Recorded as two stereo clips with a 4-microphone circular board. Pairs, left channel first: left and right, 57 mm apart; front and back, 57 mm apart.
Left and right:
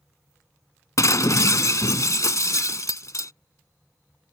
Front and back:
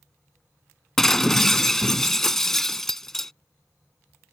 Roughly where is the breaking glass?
Left.